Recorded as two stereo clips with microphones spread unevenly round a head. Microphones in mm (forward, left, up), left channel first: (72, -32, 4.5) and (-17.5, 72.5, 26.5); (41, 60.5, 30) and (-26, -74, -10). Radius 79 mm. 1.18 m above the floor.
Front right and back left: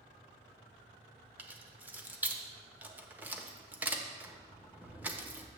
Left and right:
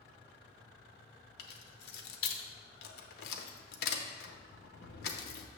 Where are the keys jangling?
55° left, 0.8 m.